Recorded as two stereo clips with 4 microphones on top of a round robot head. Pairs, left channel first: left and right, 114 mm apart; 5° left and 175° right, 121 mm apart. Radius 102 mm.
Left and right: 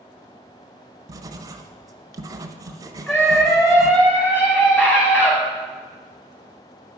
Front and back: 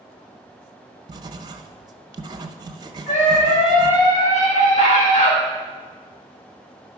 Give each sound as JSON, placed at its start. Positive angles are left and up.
{"t": 1.1, "sound": "writing", "azimuth_deg": -135, "distance_m": 0.6}
{"t": 3.1, "sound": "a scream", "azimuth_deg": 20, "distance_m": 4.5}